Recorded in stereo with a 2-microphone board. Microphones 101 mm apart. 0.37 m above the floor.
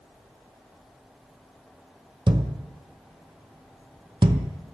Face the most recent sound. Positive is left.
turn(degrees=-60)  # may be behind; listen again after turning